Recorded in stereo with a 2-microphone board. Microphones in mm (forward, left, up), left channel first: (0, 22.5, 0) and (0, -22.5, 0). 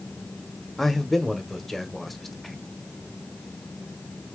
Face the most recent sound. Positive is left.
turn(degrees=5)  # may be behind; listen again after turning